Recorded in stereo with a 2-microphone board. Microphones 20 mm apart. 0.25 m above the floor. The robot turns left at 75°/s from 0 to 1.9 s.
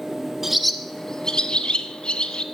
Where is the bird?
15° right (ahead or behind), 0.7 m; by 2.4 s 60° left (ahead or behind), 0.7 m.